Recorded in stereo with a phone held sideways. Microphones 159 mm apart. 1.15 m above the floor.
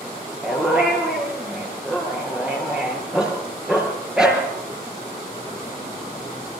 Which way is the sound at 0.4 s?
5° right (ahead or behind).